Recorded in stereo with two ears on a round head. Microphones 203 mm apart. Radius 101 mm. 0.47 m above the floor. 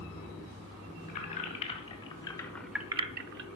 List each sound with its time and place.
1.1 s keys jangling: 30° left (ahead or behind), 2 m; by 3.5 s 55° right (ahead or behind), 0.7 m